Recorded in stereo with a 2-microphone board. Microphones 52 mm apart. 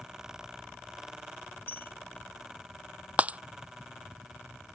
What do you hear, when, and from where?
1.7 s a bell: 40° left (ahead or behind)
3.2 s breaking glass: 25° right (ahead or behind)